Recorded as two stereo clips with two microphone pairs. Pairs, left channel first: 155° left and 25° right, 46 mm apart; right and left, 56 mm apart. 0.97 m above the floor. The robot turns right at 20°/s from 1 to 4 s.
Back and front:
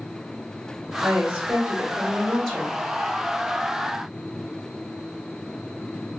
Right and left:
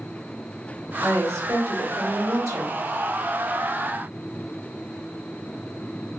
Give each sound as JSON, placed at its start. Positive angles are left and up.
{"t": 1.0, "sound": "a woman speaking", "azimuth_deg": 45, "distance_m": 1.2}